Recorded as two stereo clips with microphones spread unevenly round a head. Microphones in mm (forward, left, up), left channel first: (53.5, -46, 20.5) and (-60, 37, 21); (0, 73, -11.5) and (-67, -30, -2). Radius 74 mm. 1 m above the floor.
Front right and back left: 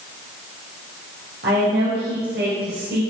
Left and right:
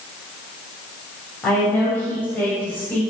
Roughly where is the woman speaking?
Behind left.